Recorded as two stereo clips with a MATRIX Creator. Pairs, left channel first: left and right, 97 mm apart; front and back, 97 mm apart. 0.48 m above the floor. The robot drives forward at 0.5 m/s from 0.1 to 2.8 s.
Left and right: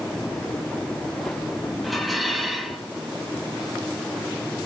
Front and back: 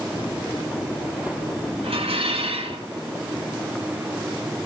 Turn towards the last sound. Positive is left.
turn(degrees=180)